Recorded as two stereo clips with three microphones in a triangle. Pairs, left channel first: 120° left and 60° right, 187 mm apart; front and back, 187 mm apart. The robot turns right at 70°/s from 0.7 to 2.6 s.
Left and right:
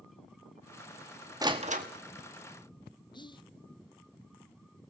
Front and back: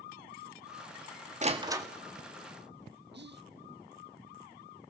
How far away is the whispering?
About 0.6 m.